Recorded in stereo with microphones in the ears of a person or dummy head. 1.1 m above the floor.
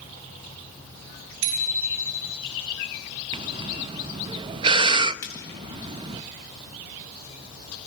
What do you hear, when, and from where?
1.4 s a bicycle bell: 65° right (ahead or behind), 6 m
3.3 s breathing: 25° right (ahead or behind), 0.6 m
5.2 s frying: 15° left (ahead or behind), 3.5 m